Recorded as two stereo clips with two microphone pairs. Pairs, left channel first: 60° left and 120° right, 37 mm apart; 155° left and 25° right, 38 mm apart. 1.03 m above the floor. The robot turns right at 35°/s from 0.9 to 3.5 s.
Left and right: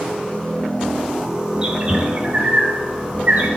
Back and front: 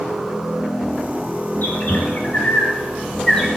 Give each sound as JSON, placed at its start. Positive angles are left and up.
{"t": 1.6, "sound": "a bird", "azimuth_deg": 175, "distance_m": 1.6}